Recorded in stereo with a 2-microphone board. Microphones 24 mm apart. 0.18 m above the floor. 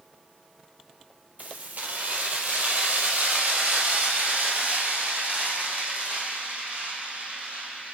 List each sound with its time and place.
1.4 s keys jangling: 75° right (ahead or behind), 3 m